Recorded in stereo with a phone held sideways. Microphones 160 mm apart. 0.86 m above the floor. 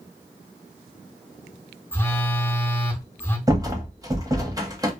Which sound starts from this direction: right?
A rattle, at 3.5 s.